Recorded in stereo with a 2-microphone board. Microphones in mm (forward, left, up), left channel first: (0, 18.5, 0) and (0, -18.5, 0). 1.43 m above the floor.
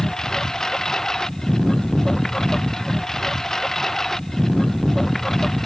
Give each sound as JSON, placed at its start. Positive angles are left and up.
{"t": 0.0, "sound": "a lawn mower", "side_deg": 15}